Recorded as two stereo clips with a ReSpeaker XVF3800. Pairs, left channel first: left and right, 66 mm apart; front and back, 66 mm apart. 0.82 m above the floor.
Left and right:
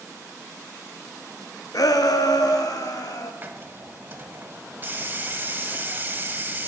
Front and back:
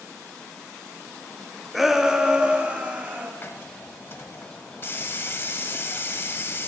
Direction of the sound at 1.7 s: 90° left.